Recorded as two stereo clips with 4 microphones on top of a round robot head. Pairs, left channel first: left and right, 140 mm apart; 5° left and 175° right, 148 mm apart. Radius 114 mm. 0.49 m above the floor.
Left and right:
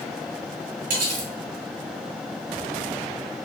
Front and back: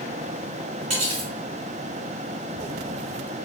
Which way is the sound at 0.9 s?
120° right.